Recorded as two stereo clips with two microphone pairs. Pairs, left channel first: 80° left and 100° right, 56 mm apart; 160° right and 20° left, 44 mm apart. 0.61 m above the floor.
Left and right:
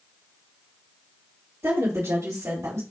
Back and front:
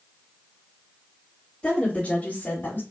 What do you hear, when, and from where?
1.6 s a woman speaking: 95° right, 1.6 m; by 2.8 s 120° right, 2 m